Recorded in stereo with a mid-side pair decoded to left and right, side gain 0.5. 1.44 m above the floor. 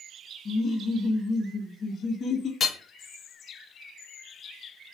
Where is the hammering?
45° left, 0.5 m.